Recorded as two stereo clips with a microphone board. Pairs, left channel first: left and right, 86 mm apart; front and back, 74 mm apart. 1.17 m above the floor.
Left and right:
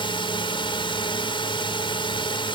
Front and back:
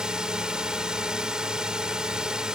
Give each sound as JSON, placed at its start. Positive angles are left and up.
{"t": 0.0, "sound": "a drone", "azimuth_deg": 100}